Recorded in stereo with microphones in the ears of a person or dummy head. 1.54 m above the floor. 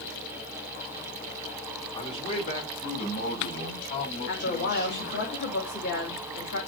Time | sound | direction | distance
1.9 | a man speaking | 30° left (ahead or behind) | 2 m
4.2 | a woman speaking | 65° left (ahead or behind) | 2.5 m